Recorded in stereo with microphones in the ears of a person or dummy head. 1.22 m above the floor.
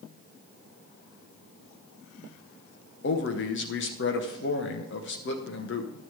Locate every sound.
3.0 s a man speaking: 55° left (ahead or behind), 1.0 m